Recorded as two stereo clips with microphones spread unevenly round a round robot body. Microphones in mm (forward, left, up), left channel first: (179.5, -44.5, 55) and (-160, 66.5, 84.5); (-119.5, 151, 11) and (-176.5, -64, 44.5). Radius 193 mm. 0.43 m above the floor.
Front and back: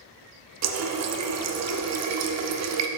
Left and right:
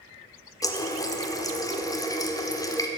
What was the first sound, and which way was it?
A running tap, 135° left.